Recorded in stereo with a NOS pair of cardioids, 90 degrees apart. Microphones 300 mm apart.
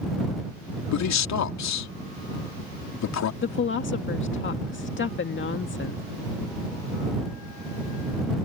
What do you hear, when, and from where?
0.9 s a man speaking: 65° left
3.4 s a woman speaking: 40° left